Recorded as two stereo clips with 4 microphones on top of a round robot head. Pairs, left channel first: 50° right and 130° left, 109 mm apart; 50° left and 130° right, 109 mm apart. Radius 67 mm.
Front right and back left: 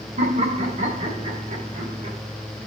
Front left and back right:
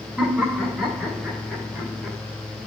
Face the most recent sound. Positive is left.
turn(degrees=150)